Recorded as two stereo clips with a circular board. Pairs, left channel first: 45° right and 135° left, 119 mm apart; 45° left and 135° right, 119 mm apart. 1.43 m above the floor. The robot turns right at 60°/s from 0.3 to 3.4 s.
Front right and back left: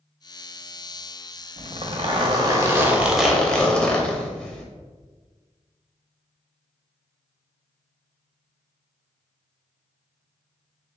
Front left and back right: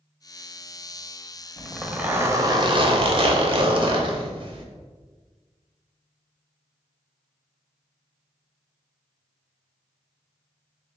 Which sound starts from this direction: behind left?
A zipper, at 1.6 s.